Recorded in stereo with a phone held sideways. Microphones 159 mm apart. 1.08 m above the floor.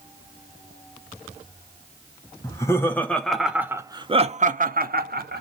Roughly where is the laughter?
Left.